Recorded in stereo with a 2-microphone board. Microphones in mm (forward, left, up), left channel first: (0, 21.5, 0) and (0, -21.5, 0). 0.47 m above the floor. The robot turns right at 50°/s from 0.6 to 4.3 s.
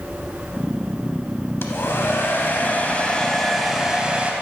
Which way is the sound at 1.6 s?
75° left.